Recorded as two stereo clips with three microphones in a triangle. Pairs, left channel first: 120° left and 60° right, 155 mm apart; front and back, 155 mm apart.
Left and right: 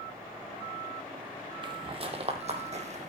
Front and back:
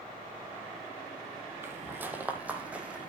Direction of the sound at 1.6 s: 110° right.